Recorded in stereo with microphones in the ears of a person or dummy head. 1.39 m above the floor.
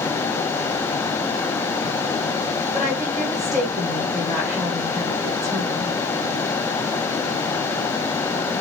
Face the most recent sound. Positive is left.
turn(degrees=-5)  # may be behind; listen again after turning